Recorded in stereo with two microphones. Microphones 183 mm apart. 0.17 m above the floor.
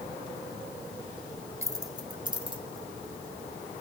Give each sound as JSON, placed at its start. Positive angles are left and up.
{"t": 1.6, "sound": "keys jangling", "side_deg": -15, "distance_m": 0.7}